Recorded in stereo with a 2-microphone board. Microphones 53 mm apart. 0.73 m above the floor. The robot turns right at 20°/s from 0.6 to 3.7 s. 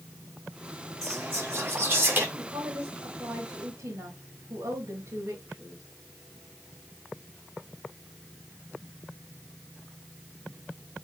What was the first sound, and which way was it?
Whispering, 65° right (ahead or behind).